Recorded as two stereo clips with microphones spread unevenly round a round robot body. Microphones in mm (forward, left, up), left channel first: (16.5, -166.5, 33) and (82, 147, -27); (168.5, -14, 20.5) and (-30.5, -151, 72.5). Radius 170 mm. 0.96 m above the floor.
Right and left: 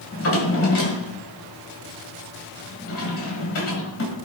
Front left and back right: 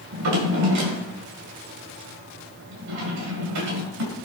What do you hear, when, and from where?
0.1 s a drawer: 150° right, 2.5 m